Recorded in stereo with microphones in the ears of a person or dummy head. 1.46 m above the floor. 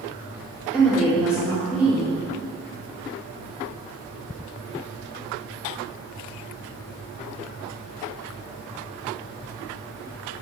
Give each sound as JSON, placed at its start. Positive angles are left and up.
{"t": 0.7, "sound": "a woman speaking", "side_deg": 10, "distance_m": 1.8}